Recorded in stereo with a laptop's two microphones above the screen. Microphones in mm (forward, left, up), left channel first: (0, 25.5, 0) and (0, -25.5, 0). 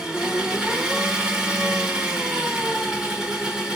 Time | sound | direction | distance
0.0 | an engine running | 15° right (ahead or behind) | 1.1 m